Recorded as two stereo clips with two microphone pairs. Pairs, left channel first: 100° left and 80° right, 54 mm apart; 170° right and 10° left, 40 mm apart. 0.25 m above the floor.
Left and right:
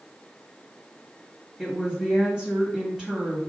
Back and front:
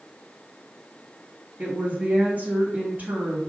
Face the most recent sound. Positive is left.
turn(degrees=-10)